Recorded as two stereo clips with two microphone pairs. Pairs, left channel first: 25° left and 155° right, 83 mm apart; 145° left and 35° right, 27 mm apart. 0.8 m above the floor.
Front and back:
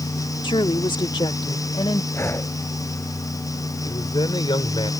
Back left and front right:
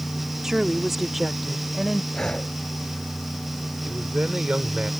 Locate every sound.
0.4 s a woman speaking: 40° left; by 2.0 s 55° left
2.1 s breathing: 85° left
3.8 s a man speaking: 10° left